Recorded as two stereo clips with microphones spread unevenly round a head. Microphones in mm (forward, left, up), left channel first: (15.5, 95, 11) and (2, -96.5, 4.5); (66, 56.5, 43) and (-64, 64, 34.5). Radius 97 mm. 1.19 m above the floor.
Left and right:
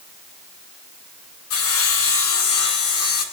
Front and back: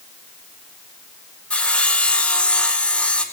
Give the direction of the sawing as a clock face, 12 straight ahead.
9 o'clock.